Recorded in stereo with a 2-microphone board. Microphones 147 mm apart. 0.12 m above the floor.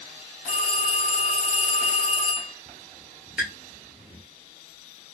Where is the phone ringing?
60° left (ahead or behind), 1.5 m.